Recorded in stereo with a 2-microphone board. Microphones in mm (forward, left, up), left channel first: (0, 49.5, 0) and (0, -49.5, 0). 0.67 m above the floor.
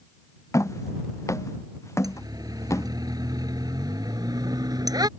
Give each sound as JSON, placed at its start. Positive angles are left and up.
{"t": 0.5, "sound": "footsteps", "side_deg": 30}
{"t": 2.0, "sound": "a siren", "side_deg": -40}